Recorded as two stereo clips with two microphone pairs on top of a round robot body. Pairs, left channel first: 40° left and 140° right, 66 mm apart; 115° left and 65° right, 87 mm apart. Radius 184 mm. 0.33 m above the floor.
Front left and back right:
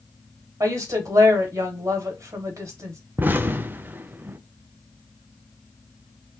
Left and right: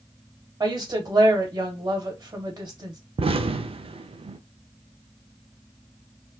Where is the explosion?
75° right, 0.5 m.